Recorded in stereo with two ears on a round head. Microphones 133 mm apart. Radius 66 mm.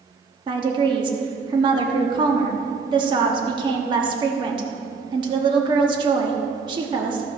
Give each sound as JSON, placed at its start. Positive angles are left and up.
{"t": 0.5, "sound": "a woman speaking", "side_deg": -30, "distance_m": 1.1}